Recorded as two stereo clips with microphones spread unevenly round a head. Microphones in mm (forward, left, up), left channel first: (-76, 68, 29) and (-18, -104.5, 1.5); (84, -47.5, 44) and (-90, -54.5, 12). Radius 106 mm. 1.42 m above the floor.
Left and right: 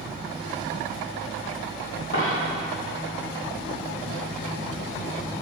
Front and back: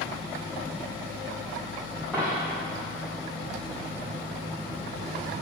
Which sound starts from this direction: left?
A dropped coin, at 2.1 s.